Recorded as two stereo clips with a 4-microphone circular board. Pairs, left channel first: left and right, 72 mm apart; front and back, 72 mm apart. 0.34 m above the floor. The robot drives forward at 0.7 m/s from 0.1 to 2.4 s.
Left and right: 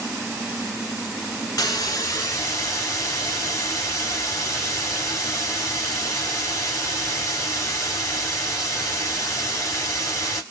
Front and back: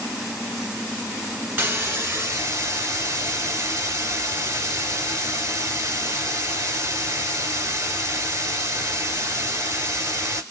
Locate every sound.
1.6 s a hiss: 125° left, 1.5 m; by 10.4 s 140° left, 1.9 m